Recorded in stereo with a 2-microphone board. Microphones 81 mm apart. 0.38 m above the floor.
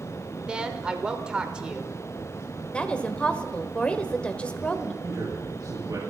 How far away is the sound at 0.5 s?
About 1.1 m.